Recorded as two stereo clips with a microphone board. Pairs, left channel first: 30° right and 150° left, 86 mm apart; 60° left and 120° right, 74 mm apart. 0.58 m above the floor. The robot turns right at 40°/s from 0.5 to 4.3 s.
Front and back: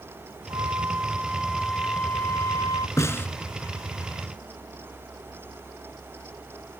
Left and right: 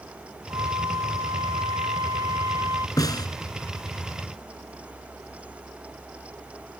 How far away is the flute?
About 0.7 m.